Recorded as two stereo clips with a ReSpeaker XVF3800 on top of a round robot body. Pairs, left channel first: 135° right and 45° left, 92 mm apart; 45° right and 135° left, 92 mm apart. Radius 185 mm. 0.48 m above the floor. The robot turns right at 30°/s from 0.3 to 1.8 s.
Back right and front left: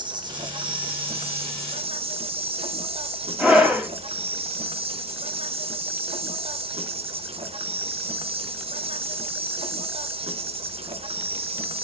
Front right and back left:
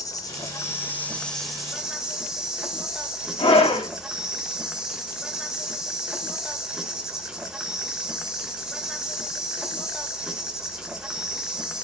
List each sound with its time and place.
0.0 s an insect: 5° left, 1.2 m; by 11.8 s 50° left, 1.2 m
3.4 s a scream: 35° right, 3.5 m